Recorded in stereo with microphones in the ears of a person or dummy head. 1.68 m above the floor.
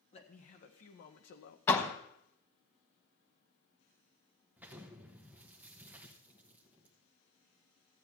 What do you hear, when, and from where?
0.1 s a man speaking: 35° left (ahead or behind), 1.7 m; by 1.6 s 60° left (ahead or behind), 1.0 m
1.7 s a door slam: 20° left (ahead or behind), 1.2 m
4.6 s an explosion: 10° right (ahead or behind), 1.2 m